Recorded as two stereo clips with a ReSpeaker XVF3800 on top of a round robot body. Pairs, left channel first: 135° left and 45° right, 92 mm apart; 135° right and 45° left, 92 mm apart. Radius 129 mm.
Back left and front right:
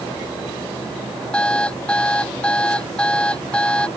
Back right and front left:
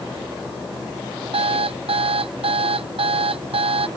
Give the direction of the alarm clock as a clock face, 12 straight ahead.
10 o'clock.